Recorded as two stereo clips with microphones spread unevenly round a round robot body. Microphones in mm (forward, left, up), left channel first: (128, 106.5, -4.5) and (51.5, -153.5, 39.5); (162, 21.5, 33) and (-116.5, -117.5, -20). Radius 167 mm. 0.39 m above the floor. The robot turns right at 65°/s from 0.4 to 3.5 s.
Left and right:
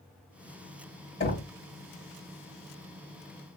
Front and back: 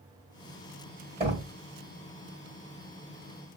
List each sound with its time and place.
1.2 s knocking: 140° left, 1.9 m; by 1.5 s 160° left, 1.9 m